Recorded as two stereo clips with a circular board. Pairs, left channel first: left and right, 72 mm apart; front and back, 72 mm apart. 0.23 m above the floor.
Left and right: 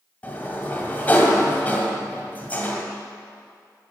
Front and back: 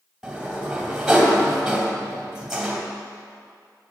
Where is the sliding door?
110° left, 1.6 m.